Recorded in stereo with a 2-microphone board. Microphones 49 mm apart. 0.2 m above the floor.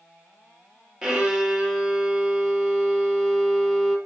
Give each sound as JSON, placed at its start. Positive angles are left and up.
{"t": 1.0, "sound": "a violin", "side_deg": -10, "distance_m": 1.1}